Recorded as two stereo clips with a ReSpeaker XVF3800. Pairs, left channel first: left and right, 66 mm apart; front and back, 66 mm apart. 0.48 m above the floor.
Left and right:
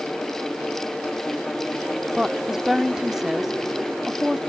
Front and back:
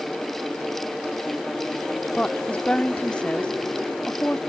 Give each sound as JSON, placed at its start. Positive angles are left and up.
{"t": 2.1, "sound": "a woman speaking", "azimuth_deg": -20}